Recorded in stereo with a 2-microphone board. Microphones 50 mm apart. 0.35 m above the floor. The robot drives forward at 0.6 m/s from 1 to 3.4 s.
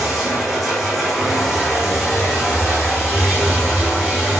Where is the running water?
Centre (ahead or behind), 5 m.